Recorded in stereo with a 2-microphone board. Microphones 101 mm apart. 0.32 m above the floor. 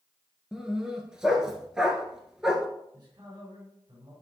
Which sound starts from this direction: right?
A man speaking, at 2.9 s.